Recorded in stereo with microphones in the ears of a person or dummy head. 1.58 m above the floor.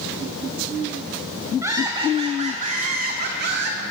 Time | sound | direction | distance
1.6 | laughter | 10° right (ahead or behind) | 1.5 m